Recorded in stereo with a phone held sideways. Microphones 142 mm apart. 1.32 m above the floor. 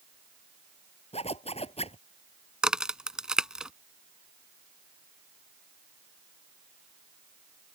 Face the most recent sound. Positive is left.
turn(degrees=-5)  # may be behind; listen again after turning